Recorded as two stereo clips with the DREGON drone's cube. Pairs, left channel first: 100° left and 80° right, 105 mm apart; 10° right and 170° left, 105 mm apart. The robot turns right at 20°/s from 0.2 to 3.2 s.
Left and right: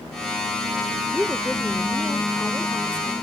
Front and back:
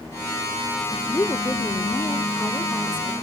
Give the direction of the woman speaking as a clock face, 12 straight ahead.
12 o'clock.